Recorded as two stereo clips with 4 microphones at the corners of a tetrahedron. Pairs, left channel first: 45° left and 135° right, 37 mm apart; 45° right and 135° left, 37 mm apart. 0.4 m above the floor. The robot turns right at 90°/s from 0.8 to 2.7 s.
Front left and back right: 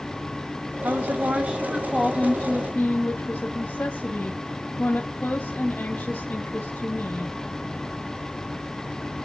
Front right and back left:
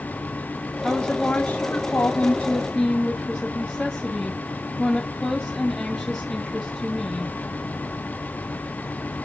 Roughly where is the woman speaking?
Behind right.